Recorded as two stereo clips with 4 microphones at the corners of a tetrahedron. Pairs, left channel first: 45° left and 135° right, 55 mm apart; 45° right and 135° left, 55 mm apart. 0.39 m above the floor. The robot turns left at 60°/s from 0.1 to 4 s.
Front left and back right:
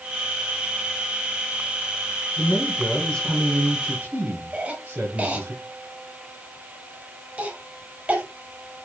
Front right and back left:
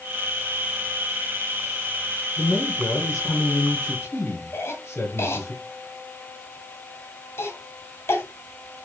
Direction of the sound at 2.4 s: 20° left.